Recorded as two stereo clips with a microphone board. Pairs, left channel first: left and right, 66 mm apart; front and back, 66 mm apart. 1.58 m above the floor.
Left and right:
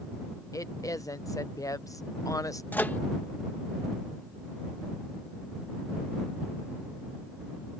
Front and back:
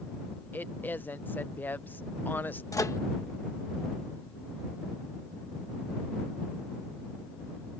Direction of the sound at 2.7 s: 30° left.